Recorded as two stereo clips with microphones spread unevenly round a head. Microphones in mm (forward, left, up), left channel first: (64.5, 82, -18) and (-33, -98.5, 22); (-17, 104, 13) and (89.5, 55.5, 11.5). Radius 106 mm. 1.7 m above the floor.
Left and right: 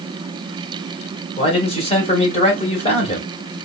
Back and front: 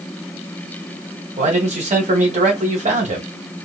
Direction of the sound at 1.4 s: Straight ahead.